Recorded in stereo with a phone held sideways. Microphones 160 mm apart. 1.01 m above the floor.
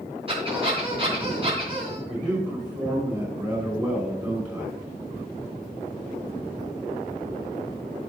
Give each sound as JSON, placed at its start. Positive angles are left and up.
{"t": 0.3, "sound": "a squeak", "side_deg": -35, "distance_m": 3.5}
{"t": 2.1, "sound": "a man speaking", "side_deg": -25, "distance_m": 5.5}